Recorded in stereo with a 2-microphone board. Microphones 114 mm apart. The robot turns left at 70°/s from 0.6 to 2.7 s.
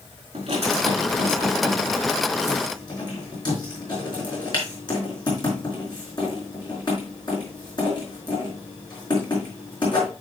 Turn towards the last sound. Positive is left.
turn(degrees=40)  # may be behind; listen again after turning